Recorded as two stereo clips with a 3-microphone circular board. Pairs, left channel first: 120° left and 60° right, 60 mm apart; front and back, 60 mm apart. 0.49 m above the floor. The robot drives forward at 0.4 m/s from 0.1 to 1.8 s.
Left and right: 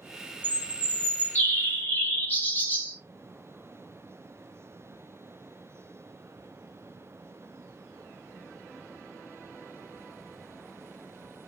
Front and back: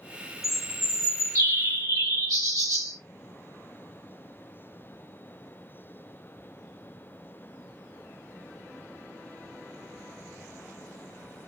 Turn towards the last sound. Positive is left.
turn(degrees=180)